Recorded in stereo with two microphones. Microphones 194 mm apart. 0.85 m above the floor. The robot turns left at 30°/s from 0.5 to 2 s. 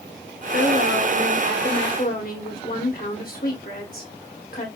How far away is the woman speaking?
About 2 m.